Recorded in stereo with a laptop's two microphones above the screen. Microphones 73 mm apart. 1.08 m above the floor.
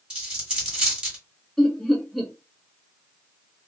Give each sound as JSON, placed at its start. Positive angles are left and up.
{"t": 0.1, "sound": "a dropped coin", "side_deg": -15, "distance_m": 1.5}
{"t": 1.6, "sound": "laughter", "side_deg": 5, "distance_m": 0.6}